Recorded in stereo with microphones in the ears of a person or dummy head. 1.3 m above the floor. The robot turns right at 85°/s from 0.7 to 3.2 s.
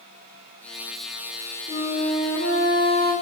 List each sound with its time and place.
1.7 s a flute: 25° left, 2.5 m; by 3.1 s 150° left, 2.5 m